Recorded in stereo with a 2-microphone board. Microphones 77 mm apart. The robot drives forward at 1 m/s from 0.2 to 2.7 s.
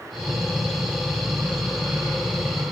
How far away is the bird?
I don't hear a bird.